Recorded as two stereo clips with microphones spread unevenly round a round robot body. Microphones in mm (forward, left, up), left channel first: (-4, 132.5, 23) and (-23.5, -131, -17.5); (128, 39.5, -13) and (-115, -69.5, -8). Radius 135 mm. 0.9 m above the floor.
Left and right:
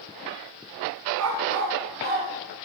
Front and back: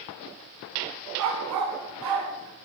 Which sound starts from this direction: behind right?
A dog barking, at 1.2 s.